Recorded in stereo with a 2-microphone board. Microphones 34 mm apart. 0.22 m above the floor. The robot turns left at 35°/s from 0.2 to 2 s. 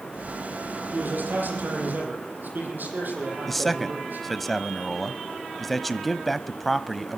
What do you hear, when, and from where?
0.9 s a man speaking: 65° right, 9.5 m; by 4.3 s 100° right, 9.5 m
3.5 s a man speaking: 5° left (ahead or behind), 1.0 m